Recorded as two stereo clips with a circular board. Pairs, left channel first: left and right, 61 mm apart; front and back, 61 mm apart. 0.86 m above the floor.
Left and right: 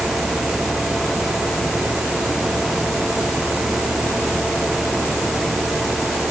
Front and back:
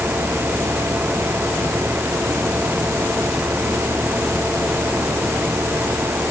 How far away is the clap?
I don't hear a clap.